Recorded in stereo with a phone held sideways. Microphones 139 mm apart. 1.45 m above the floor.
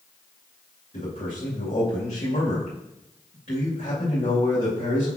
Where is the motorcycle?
I don't hear a motorcycle.